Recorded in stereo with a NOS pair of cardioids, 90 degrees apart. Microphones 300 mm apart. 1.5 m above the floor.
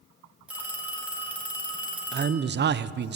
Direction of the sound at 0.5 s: 5° right.